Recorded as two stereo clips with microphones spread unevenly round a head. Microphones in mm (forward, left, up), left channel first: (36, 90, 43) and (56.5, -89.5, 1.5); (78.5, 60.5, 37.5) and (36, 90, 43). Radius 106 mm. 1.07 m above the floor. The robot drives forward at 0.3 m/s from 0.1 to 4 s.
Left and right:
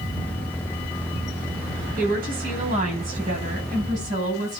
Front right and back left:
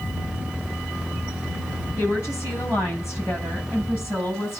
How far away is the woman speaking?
About 9 m.